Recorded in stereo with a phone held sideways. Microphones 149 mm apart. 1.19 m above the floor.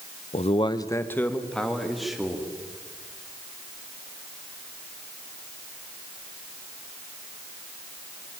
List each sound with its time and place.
0.3 s a man speaking: 55° left (ahead or behind), 0.8 m; by 2.5 s 5° right (ahead or behind), 3 m